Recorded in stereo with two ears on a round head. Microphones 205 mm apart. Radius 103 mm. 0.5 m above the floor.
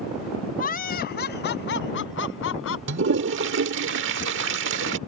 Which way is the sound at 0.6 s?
40° left (ahead or behind).